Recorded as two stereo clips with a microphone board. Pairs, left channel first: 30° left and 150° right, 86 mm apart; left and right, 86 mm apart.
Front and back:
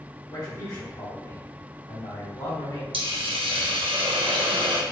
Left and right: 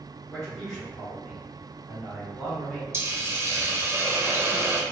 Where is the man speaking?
10° left, 1.2 m.